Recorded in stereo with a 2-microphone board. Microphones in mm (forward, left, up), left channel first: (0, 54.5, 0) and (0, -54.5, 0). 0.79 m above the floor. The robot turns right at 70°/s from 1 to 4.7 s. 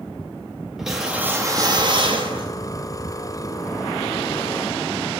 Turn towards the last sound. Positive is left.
turn(degrees=85)